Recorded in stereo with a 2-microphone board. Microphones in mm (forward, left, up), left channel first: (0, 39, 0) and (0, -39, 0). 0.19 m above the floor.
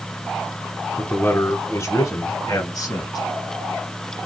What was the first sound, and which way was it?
A man speaking, 20° left (ahead or behind).